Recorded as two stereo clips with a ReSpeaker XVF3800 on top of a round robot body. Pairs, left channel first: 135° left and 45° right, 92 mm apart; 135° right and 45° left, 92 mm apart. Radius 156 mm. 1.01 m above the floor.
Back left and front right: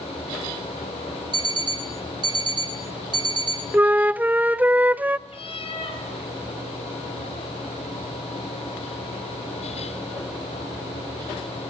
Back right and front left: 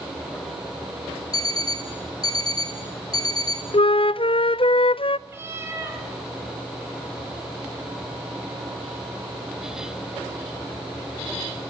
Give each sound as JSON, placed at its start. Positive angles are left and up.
{"t": 1.3, "sound": "an alarm clock", "azimuth_deg": -85, "distance_m": 0.6}
{"t": 3.7, "sound": "a flute", "azimuth_deg": -115, "distance_m": 0.6}
{"t": 5.3, "sound": "a cat meowing", "azimuth_deg": 110, "distance_m": 4.0}